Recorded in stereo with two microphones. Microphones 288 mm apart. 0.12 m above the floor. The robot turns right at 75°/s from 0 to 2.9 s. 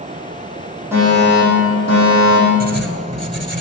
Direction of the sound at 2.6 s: 30° right (ahead or behind).